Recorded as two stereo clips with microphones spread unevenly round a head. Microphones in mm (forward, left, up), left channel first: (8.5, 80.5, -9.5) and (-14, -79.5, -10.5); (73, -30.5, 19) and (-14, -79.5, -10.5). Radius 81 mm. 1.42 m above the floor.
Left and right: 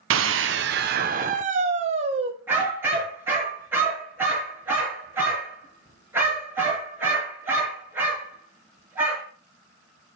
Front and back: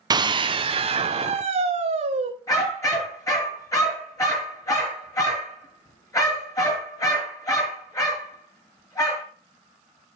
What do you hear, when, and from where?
0.1 s a scream: 100° right, 0.7 m; by 2.3 s 155° right, 1.4 m
2.5 s a dog barking: 20° right, 5.5 m